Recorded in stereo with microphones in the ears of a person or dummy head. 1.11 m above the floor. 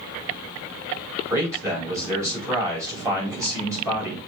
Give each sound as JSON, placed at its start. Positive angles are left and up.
{"t": 1.3, "sound": "a man speaking", "side_deg": -20, "distance_m": 5.0}